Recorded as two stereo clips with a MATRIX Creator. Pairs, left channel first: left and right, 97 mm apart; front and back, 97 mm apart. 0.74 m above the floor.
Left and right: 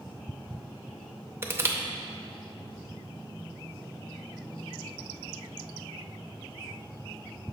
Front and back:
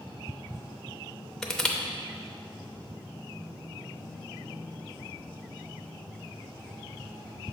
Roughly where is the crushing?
Right.